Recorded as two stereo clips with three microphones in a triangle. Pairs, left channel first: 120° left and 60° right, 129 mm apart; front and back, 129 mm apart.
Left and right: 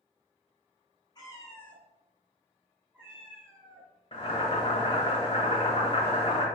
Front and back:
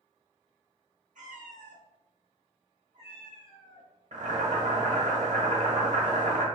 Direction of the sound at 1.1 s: 175° left.